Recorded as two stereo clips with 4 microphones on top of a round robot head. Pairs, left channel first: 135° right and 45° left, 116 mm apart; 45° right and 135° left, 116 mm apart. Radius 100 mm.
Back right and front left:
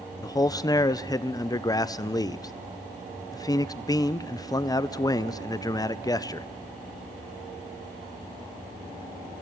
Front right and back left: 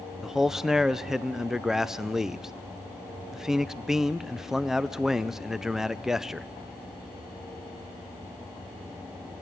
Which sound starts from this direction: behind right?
A man speaking, at 0.2 s.